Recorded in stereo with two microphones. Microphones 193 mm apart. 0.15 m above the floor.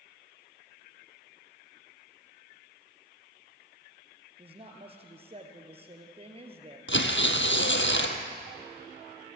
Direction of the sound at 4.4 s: 30° right (ahead or behind).